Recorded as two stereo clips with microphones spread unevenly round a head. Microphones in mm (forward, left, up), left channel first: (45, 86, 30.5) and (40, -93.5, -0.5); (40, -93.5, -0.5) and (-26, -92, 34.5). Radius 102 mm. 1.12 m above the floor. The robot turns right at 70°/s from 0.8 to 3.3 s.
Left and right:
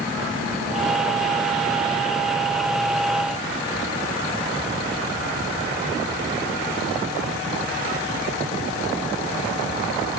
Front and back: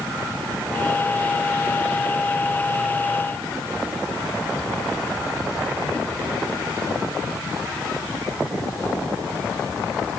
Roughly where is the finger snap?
I don't hear a finger snap.